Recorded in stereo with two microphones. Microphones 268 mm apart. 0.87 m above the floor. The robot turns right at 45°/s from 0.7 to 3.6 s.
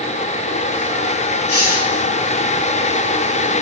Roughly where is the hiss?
Left.